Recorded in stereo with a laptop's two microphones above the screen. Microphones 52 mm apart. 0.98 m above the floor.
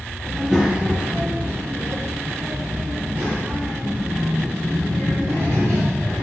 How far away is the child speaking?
About 0.8 m.